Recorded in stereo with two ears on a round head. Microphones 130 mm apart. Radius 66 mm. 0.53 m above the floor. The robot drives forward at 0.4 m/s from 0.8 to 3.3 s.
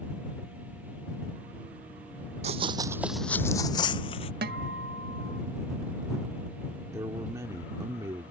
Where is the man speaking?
20° right (ahead or behind).